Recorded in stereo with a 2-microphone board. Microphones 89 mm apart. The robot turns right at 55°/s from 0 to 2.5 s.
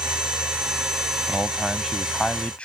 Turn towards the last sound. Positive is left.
turn(degrees=15)  # may be behind; listen again after turning